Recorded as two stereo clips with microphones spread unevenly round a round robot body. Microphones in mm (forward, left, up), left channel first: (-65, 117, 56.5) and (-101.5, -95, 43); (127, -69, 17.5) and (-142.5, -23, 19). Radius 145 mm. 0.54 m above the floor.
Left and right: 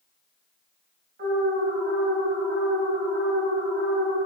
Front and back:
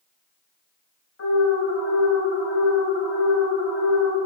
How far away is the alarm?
About 3 m.